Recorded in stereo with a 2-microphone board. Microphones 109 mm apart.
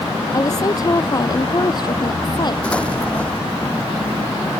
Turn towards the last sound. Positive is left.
turn(degrees=10)  # may be behind; listen again after turning